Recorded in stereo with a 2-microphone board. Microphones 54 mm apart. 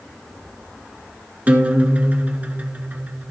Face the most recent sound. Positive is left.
turn(degrees=-30)  # may be behind; listen again after turning